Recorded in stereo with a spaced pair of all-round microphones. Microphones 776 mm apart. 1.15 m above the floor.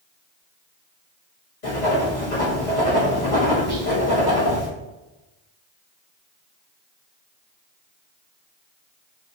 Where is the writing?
70° left (ahead or behind), 1.2 m.